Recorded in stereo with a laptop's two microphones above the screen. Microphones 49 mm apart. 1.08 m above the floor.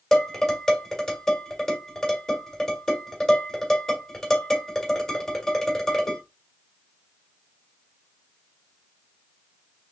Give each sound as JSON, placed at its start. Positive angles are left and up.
{"t": 0.1, "sound": "dishes clattering", "side_deg": 10, "distance_m": 2.5}